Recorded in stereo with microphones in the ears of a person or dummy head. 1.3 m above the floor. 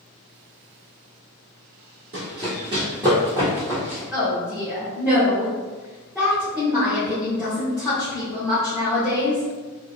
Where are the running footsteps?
35° right (ahead or behind), 1.8 m; by 4.0 s 5° right (ahead or behind), 1.8 m.